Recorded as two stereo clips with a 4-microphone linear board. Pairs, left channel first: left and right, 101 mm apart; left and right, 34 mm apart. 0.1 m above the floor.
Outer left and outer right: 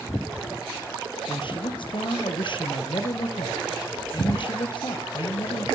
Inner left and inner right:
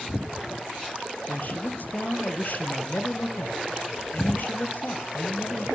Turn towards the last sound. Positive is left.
turn(degrees=55)  # may be behind; listen again after turning